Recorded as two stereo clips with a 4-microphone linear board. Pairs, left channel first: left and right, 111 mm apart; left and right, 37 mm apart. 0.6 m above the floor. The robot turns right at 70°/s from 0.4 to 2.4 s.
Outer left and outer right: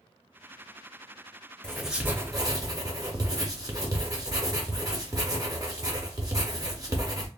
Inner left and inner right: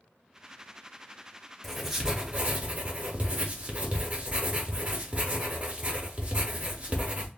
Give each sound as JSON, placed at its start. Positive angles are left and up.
{"t": 1.6, "sound": "writing", "azimuth_deg": 170, "distance_m": 0.6}